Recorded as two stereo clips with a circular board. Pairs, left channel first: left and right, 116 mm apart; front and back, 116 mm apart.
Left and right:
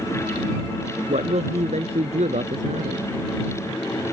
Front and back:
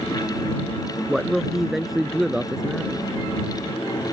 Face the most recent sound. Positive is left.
turn(degrees=-95)